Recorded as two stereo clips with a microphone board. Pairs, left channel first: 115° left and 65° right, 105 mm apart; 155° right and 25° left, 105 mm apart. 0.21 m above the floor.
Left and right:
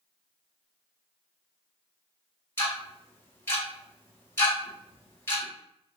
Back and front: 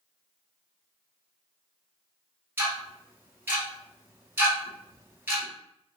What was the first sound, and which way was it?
Ticking, 70° left.